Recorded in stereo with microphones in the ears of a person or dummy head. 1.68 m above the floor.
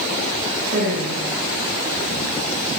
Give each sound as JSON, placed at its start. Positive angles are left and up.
{"t": 0.7, "sound": "a woman speaking", "side_deg": -65, "distance_m": 7.0}